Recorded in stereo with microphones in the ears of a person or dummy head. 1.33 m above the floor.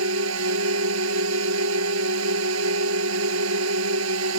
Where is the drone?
70° right (ahead or behind).